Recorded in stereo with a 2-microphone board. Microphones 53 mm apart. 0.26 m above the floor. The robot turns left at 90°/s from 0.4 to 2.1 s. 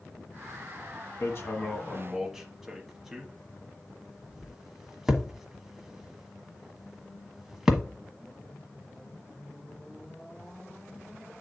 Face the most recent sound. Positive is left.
turn(degrees=-5)  # may be behind; listen again after turning